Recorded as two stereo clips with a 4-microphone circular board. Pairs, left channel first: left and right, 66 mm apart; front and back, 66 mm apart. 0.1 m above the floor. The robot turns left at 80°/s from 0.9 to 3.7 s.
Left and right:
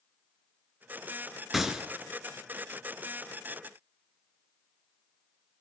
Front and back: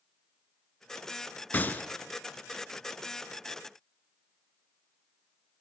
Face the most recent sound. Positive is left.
turn(degrees=180)